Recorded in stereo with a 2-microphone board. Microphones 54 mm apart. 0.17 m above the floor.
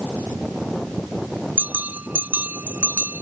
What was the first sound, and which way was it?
A bell, 35° right (ahead or behind).